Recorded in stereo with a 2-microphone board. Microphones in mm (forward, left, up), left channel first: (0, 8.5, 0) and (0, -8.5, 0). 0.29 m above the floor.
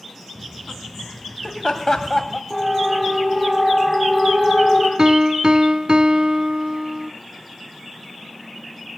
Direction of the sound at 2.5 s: Centre (ahead or behind).